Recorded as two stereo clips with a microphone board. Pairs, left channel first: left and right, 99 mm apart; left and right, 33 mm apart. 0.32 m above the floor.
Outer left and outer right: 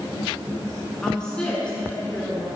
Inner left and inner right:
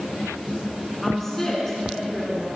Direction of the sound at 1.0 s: 5° left (ahead or behind).